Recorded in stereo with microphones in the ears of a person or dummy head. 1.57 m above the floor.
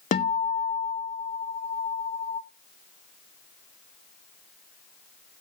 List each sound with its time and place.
0.1 s a guitar: 35° left (ahead or behind), 0.6 m